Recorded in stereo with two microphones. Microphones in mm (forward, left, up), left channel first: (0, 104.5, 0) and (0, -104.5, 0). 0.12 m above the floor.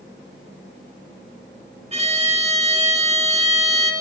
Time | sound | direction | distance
1.9 | a violin | 30° right (ahead or behind) | 1.2 m